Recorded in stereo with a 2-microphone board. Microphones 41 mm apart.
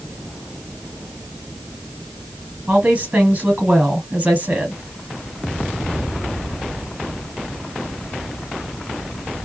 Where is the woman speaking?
35° right (ahead or behind), 1.7 m.